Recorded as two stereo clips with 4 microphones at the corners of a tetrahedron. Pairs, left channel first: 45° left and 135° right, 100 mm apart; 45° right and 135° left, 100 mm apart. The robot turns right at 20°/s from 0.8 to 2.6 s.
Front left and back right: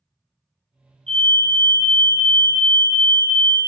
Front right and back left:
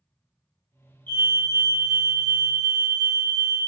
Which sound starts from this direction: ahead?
A fire alarm, at 1.1 s.